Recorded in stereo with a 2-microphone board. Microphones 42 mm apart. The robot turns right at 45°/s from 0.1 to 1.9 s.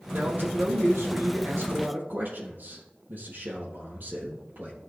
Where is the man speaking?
135° right, 3.5 m; by 4.7 s 55° right, 3.5 m.